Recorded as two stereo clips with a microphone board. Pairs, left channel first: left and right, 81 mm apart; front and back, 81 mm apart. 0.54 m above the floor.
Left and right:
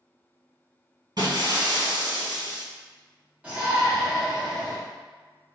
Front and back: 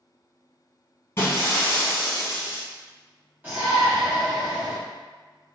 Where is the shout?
145° right, 1.3 m.